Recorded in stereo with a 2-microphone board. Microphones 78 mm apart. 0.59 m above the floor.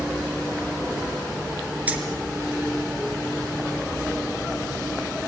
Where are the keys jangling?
20° right (ahead or behind), 5 m.